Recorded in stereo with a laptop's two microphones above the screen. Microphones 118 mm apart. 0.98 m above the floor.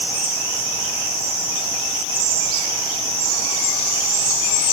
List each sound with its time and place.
Only background noise.